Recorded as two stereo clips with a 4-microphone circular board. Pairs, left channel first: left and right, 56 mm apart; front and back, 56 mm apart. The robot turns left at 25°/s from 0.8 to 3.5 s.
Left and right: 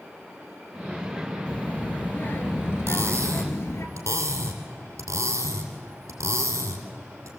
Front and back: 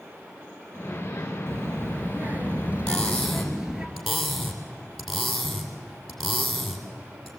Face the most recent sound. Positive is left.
turn(degrees=-90)